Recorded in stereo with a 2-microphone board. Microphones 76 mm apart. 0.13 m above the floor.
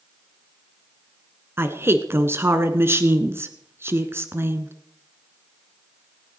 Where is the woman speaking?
30° right (ahead or behind), 1.3 m.